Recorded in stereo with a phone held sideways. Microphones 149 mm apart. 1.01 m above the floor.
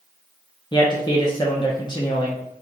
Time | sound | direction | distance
0.7 | a man speaking | 30° left (ahead or behind) | 0.5 m